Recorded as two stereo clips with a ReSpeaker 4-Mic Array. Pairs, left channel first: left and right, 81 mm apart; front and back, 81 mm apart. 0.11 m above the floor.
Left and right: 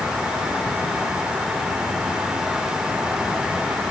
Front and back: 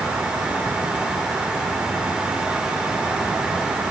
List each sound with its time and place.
Only background noise.